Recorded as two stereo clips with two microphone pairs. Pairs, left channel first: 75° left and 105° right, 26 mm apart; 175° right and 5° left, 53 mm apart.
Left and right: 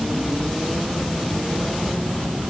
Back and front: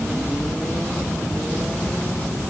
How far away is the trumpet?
No trumpet in this recording.